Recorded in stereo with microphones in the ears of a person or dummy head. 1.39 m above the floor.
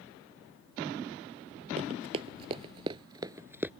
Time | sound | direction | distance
1.8 | running footsteps | 35° right (ahead or behind) | ?